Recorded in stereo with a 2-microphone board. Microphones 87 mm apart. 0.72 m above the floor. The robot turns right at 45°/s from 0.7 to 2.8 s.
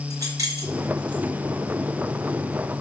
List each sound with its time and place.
0.1 s keys jangling: 45° right (ahead or behind), 4 m; by 1.2 s 65° right (ahead or behind), 4 m